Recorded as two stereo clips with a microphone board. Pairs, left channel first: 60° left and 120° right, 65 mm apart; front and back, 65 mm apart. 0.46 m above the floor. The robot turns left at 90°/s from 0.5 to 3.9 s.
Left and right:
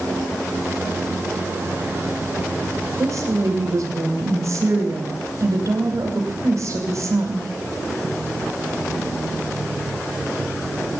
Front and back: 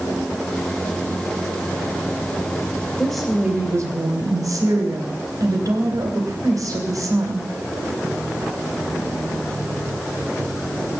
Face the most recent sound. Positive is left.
turn(degrees=-160)